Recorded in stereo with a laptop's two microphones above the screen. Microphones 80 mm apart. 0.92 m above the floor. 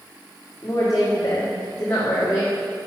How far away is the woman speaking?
About 1.8 m.